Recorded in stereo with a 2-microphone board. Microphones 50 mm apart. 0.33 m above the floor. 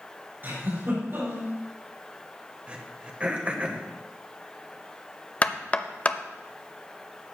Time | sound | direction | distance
0.4 | a giggle | 40° right (ahead or behind) | 5.5 m
2.7 | throat clearing | 25° right (ahead or behind) | 1.1 m
5.4 | knocking | 25° left (ahead or behind) | 0.6 m